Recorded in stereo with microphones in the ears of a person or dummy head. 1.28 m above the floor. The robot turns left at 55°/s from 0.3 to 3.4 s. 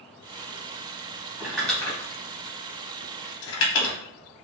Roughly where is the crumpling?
Centre.